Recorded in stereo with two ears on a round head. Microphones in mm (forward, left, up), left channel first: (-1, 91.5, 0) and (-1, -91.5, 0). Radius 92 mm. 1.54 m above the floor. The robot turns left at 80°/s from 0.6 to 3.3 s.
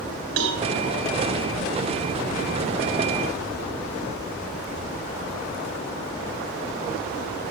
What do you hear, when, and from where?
0.4 s a cowbell: 65° right (ahead or behind), 4.5 m